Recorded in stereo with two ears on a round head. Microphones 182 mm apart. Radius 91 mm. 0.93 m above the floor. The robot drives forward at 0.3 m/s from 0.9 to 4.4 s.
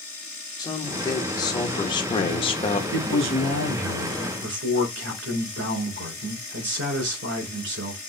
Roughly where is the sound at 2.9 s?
Right.